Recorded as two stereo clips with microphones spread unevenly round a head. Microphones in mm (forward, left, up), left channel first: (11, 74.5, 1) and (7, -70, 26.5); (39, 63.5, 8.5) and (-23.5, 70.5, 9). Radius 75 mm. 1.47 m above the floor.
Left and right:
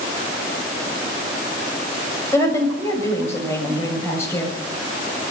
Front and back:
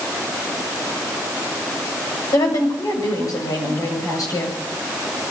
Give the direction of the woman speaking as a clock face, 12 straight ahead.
12 o'clock.